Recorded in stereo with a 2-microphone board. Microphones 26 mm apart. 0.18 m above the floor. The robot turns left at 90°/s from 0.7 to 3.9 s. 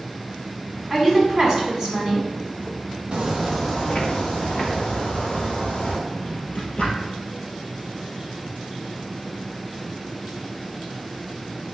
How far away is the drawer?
About 1.8 m.